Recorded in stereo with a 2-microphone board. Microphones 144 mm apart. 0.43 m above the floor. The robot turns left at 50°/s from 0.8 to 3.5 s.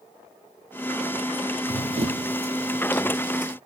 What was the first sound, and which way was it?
Running footsteps, 45° right (ahead or behind).